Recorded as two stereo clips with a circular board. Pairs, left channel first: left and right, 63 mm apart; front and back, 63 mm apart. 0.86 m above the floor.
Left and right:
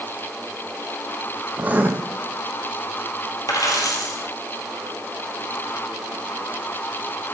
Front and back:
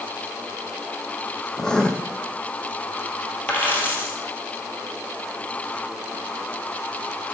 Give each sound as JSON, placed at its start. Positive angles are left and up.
{"t": 1.6, "sound": "writing", "azimuth_deg": -65, "distance_m": 0.7}
{"t": 3.5, "sound": "a dropped coin", "azimuth_deg": 60, "distance_m": 2.0}